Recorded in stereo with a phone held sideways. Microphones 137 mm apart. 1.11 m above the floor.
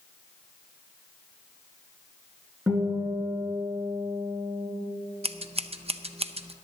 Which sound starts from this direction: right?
Scissors, at 5.2 s.